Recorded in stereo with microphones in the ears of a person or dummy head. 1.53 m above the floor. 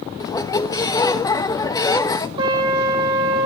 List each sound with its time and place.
0.2 s a squeak: 30° left (ahead or behind), 1.0 m
2.4 s a trumpet: 30° right (ahead or behind), 6.5 m